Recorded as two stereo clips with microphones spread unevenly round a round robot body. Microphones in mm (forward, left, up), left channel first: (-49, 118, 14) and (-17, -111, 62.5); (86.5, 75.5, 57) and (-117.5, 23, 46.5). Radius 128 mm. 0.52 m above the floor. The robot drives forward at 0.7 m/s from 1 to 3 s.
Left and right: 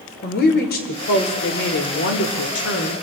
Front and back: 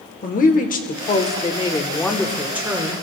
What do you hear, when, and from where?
0.2 s a woman speaking: 65° left, 1.4 m; by 3.0 s 125° left, 1.5 m